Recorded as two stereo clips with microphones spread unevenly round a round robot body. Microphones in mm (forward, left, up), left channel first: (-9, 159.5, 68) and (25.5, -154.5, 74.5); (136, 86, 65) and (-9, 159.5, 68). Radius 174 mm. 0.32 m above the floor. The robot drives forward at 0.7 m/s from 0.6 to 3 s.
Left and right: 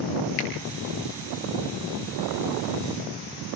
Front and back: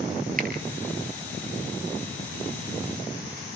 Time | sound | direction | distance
0.4 | a finger snap | 115° left | 6 m